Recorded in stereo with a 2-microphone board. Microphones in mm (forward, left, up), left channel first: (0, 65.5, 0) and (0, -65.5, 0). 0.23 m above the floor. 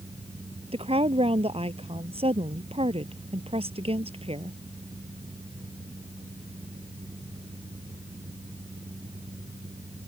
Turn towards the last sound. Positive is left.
turn(degrees=-45)  # may be behind; listen again after turning